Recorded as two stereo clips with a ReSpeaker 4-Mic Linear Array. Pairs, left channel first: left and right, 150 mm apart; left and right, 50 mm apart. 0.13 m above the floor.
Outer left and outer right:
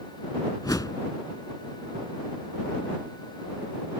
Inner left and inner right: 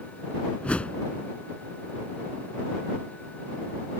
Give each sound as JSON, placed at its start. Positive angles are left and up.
{"t": 0.6, "sound": "a whoosh", "side_deg": 25}